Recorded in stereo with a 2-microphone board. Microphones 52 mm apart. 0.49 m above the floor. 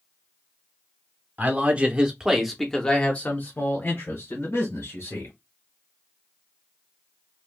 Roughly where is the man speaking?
Right.